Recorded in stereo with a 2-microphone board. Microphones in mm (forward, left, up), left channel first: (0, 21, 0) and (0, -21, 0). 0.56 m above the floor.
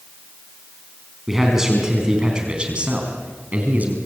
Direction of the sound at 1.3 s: 5° right (ahead or behind).